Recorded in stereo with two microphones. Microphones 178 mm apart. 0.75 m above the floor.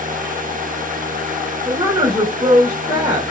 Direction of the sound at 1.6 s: 30° right (ahead or behind).